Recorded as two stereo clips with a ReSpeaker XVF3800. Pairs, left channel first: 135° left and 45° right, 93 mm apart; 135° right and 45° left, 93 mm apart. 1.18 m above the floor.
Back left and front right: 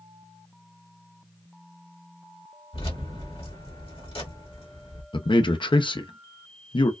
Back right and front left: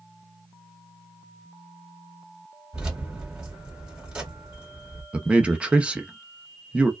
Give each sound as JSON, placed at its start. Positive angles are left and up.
{"t": 2.7, "sound": "keys jangling", "azimuth_deg": 125, "distance_m": 1.8}
{"t": 5.1, "sound": "a man speaking", "azimuth_deg": 120, "distance_m": 0.6}